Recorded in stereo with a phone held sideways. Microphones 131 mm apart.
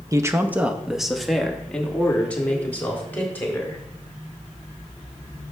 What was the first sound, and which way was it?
A man speaking, 25° right (ahead or behind).